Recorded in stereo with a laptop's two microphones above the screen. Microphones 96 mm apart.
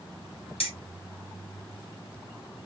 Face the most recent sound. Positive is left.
turn(degrees=80)